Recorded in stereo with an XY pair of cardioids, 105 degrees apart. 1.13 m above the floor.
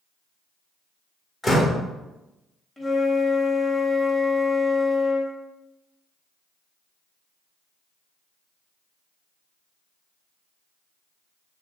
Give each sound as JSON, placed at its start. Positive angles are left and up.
{"t": 1.4, "sound": "a door slam", "azimuth_deg": 25, "distance_m": 1.1}
{"t": 2.8, "sound": "a flute", "azimuth_deg": 15, "distance_m": 1.2}